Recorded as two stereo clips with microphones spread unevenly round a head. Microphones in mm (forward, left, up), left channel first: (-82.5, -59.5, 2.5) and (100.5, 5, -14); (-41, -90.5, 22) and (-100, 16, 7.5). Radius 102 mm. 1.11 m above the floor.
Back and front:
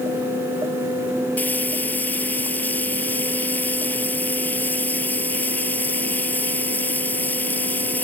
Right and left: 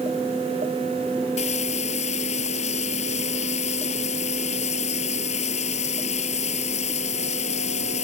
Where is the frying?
80° right.